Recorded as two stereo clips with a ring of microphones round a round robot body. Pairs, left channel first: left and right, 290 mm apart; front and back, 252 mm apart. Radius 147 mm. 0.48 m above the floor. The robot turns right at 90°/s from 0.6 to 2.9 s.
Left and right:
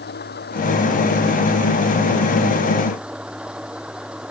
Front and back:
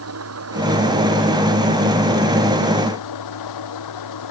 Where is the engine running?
150° left; by 4.3 s 5° right.